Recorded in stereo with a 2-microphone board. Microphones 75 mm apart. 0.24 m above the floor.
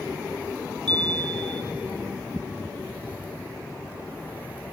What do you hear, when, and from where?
0.9 s a chime: 80° right, 0.9 m